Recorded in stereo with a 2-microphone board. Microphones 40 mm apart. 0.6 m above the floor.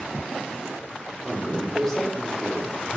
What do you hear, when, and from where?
1.2 s a man speaking: 15° left (ahead or behind), 1.7 m